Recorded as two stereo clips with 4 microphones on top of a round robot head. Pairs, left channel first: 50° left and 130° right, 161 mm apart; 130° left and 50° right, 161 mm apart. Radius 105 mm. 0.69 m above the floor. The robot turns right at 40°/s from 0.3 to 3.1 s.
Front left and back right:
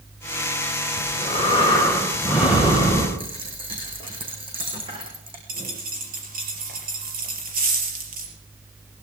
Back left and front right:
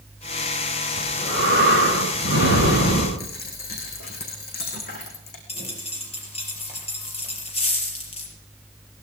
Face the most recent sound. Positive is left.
turn(degrees=-170)